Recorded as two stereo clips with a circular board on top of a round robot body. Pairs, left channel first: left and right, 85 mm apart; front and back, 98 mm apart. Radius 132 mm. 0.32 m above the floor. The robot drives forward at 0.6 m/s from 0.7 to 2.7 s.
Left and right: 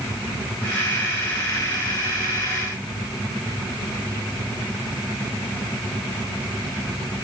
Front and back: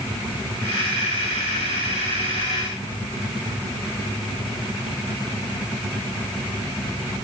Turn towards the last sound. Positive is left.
No sound to turn to.